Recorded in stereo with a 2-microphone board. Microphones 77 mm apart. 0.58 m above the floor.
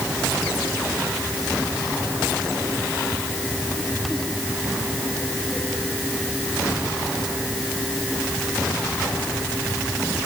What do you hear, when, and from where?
Only background noise.